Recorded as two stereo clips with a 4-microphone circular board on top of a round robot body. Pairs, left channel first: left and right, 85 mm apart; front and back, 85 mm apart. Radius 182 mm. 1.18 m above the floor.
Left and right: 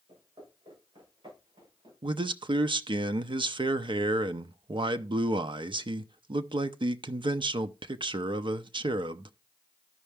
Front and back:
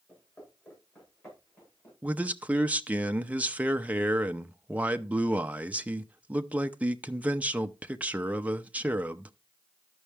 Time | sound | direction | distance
0.1 | footsteps | 65° right | 9 m
2.0 | a man speaking | 110° right | 0.7 m